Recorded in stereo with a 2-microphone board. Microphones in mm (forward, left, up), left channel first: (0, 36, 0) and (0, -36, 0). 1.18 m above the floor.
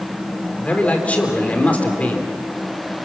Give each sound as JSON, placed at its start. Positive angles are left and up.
{"t": 0.6, "sound": "a man speaking", "side_deg": 20, "distance_m": 3.5}